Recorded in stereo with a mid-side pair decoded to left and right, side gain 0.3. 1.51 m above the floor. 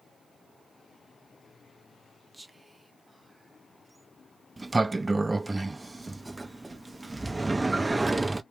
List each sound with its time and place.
2.3 s whispering: 15° right, 0.5 m
4.6 s a sliding door: 25° right, 0.6 m